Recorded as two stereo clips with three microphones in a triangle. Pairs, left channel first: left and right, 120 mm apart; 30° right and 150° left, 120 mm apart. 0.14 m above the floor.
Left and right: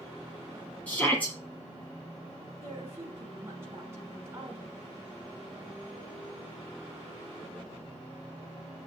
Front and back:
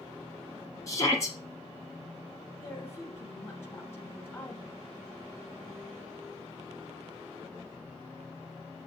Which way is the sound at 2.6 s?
60° right.